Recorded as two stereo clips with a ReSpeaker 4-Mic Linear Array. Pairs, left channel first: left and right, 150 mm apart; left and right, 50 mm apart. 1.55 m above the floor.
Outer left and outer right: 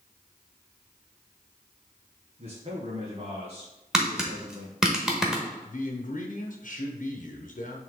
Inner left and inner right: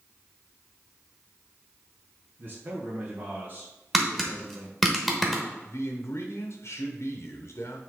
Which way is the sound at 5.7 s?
65° left (ahead or behind).